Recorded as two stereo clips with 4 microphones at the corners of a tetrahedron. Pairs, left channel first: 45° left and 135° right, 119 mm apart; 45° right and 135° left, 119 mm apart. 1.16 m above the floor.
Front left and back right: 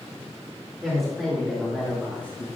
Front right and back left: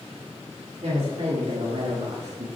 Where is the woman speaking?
135° left, 2.5 m; by 2.5 s 115° left, 1.0 m.